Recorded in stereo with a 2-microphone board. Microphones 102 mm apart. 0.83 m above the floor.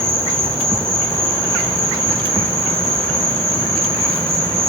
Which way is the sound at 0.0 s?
70° right (ahead or behind).